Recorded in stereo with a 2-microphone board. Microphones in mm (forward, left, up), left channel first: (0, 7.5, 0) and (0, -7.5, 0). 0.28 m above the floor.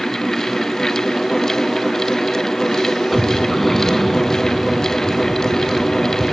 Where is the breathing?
10° left (ahead or behind).